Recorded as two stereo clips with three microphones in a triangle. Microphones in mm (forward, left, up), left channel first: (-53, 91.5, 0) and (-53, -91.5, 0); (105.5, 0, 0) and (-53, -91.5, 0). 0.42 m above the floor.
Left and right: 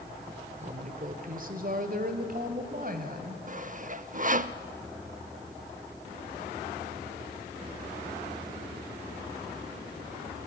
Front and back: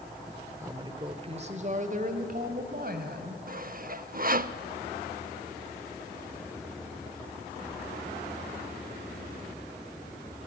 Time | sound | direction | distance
0.6 | a woman speaking | 85° right | 1.1 m
3.5 | sawing | 125° right | 0.6 m